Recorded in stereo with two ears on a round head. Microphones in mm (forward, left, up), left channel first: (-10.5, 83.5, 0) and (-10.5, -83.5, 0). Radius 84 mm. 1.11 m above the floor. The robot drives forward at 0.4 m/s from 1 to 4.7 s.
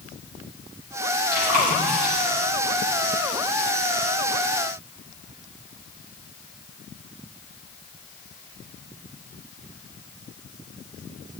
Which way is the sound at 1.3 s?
50° right (ahead or behind).